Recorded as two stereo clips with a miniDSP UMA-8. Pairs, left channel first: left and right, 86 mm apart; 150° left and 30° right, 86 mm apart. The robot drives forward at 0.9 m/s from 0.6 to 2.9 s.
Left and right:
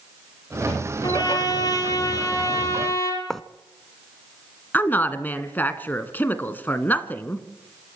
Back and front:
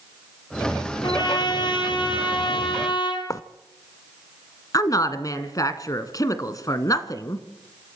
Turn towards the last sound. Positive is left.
turn(degrees=145)